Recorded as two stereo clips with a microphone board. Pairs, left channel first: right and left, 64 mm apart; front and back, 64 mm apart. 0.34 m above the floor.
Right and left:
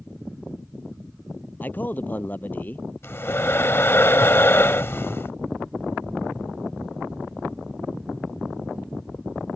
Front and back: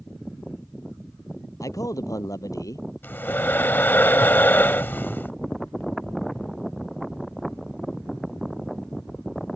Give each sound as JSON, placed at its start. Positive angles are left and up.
{"t": 1.6, "sound": "a man speaking", "azimuth_deg": -30}
{"t": 3.0, "sound": "breathing", "azimuth_deg": -50}